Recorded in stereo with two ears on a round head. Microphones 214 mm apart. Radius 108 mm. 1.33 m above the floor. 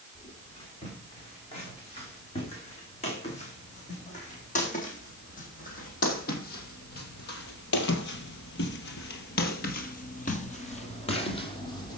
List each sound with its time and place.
0.1 s footsteps: 25° left (ahead or behind), 7.5 m; by 12.0 s 20° left (ahead or behind), 3 m